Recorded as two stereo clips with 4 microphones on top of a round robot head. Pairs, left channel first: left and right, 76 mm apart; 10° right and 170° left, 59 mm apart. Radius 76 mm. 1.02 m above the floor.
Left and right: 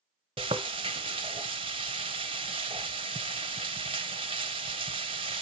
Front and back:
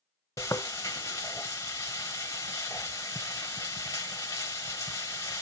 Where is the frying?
65° right, 0.9 m.